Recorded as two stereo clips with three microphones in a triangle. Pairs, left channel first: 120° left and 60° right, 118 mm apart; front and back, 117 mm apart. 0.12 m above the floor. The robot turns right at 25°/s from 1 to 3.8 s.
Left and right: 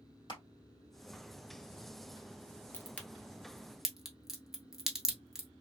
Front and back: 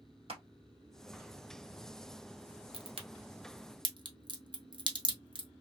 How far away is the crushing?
About 1.4 m.